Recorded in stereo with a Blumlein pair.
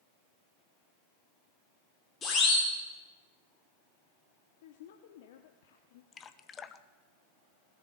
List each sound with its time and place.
2.2 s a siren: 20° left, 3.5 m
4.6 s a woman speaking: 55° left, 0.9 m
6.1 s dripping: 20° left, 0.7 m